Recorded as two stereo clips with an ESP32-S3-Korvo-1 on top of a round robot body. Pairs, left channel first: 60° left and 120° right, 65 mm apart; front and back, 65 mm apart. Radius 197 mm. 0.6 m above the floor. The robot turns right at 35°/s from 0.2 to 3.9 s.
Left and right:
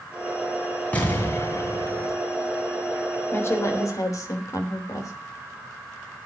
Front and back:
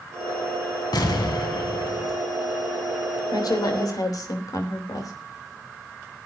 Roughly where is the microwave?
No microwave in this recording.